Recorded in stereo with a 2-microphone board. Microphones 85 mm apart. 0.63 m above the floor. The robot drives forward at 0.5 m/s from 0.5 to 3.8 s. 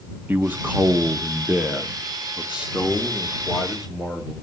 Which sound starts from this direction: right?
A man speaking, at 0.3 s.